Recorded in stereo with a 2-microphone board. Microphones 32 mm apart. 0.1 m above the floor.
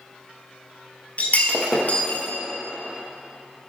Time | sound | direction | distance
1.2 | breaking glass | 50° left (ahead or behind) | 1.0 m